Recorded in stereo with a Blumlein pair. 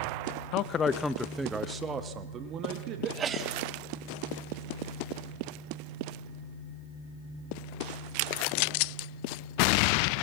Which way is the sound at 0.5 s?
40° left.